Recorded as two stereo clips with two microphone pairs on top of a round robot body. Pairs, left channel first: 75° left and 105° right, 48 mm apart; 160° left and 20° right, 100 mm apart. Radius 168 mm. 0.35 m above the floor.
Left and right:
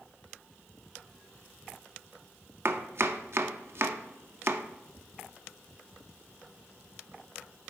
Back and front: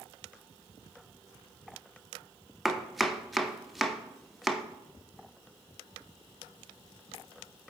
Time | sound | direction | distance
2.6 | chopping | 105° right | 0.7 m